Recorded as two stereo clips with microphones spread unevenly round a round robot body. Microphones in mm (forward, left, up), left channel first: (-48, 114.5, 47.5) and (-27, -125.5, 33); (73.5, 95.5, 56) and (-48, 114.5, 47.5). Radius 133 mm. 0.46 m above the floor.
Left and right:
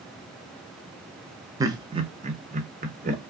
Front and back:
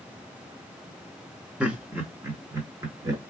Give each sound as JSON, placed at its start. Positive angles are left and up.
{"t": 1.6, "sound": "laughter", "azimuth_deg": -130, "distance_m": 0.7}